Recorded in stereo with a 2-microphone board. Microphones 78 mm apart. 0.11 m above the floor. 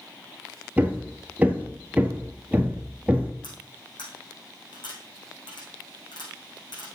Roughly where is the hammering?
Right.